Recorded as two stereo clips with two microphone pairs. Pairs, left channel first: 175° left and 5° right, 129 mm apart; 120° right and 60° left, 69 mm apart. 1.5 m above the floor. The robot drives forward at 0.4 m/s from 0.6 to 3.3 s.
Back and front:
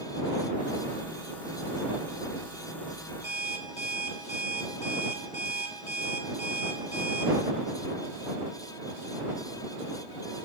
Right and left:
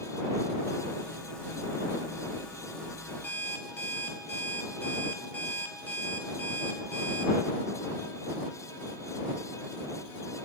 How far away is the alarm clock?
About 2.5 m.